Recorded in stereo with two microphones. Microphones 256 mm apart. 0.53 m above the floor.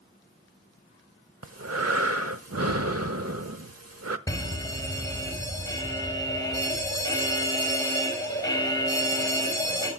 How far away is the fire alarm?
About 4 m.